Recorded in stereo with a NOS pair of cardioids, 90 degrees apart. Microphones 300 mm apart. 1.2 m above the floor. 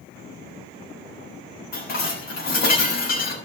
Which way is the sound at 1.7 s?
60° left.